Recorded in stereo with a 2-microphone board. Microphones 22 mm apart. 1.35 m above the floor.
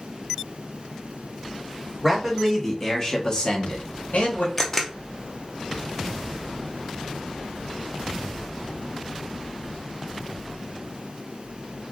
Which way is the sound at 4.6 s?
10° left (ahead or behind).